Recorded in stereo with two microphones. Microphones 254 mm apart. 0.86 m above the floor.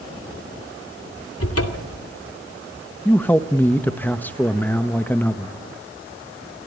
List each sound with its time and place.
1.4 s a cupboard door: 65° left (ahead or behind), 2.5 m
3.0 s a man speaking: 5° left (ahead or behind), 1.0 m